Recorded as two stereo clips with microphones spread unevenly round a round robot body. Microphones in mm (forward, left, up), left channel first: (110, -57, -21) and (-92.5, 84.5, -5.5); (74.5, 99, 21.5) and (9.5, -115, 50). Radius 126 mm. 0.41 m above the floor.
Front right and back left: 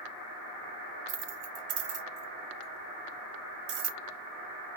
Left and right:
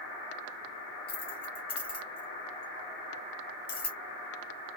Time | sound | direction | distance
1.1 | keys jangling | 135° left | 1.3 m